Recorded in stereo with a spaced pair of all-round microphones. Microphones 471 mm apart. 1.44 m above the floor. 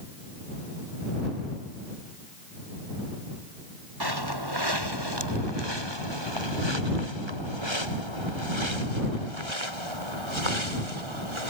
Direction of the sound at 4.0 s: 50° right (ahead or behind).